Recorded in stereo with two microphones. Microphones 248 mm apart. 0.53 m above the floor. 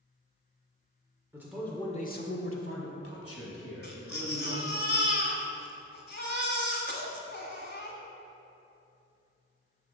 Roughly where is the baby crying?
Left.